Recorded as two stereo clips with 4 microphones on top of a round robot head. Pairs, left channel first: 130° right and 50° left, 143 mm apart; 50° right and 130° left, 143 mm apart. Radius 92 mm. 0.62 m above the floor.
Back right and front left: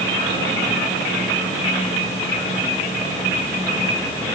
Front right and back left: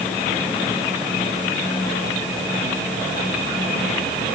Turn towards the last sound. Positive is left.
No sound to turn to.